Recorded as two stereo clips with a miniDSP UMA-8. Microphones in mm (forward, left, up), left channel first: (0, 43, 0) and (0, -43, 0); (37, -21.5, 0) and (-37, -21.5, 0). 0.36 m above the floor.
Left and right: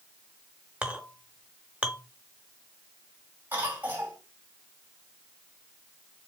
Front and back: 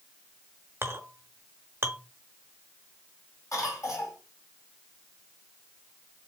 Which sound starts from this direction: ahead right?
A cough, at 3.5 s.